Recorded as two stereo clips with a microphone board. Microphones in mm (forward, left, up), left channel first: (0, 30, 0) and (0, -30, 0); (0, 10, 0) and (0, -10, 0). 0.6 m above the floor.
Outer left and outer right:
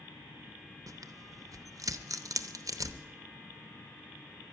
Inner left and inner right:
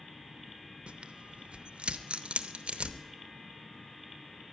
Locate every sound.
0.9 s tearing paper: 70° right (ahead or behind), 0.7 m